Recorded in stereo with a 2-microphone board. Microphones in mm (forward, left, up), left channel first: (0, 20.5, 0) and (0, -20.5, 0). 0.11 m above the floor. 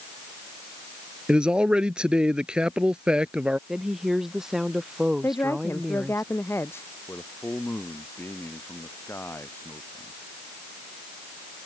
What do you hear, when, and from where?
1.3 s a man speaking: 20° right (ahead or behind)
3.7 s a woman speaking: 10° right (ahead or behind)
5.2 s a woman speaking: 75° left (ahead or behind)
7.1 s a man speaking: 65° left (ahead or behind)